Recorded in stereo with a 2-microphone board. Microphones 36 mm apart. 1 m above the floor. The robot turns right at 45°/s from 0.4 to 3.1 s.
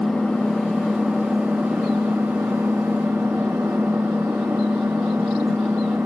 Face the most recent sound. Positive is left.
turn(degrees=-80)